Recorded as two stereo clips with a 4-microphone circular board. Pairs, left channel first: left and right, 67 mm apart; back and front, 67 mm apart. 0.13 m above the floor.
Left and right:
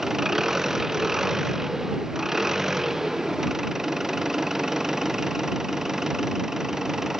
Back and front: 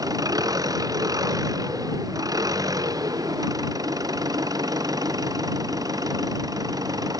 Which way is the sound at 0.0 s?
5° right.